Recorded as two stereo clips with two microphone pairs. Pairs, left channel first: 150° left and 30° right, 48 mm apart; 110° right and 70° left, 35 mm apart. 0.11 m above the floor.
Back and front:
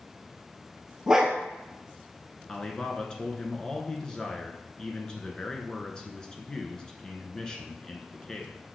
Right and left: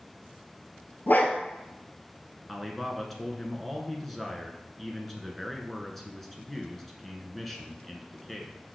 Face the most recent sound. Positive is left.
turn(degrees=175)